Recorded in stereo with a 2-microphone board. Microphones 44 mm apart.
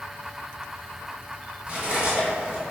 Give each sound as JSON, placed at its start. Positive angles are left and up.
{"t": 1.7, "sound": "cutlery clinking", "side_deg": -30, "distance_m": 1.3}